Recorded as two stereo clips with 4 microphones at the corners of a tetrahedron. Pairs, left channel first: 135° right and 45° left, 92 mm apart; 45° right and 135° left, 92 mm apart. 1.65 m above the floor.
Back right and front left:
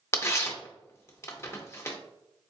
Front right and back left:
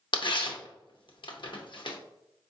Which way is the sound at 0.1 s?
75° right.